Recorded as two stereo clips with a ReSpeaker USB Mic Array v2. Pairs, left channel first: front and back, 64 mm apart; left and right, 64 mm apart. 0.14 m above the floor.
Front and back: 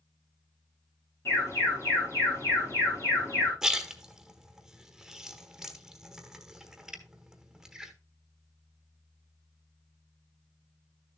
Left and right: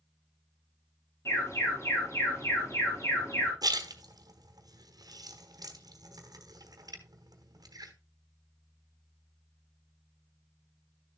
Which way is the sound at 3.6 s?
95° right.